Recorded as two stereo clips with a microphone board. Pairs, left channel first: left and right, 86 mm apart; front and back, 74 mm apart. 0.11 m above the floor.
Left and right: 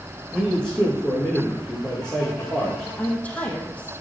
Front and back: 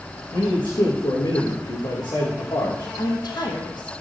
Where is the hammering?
I don't hear hammering.